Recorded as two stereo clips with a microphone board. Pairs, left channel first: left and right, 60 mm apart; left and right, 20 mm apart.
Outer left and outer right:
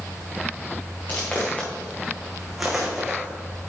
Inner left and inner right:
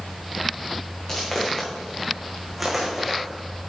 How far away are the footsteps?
About 3 m.